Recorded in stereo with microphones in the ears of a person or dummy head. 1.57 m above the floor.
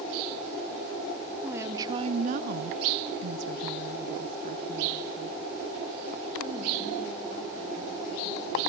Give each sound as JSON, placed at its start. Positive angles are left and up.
{"t": 1.4, "sound": "a woman speaking", "side_deg": -10, "distance_m": 1.0}